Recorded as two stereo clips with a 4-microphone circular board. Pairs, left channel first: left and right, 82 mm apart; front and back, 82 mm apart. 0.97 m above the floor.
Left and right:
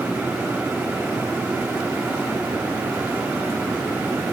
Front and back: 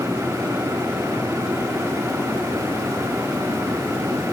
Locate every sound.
Only background noise.